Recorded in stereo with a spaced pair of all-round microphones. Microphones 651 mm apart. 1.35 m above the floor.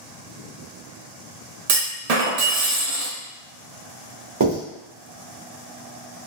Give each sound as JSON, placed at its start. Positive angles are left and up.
{"t": 1.7, "sound": "a clunk", "side_deg": -70, "distance_m": 0.7}
{"t": 4.4, "sound": "writing", "side_deg": -30, "distance_m": 1.5}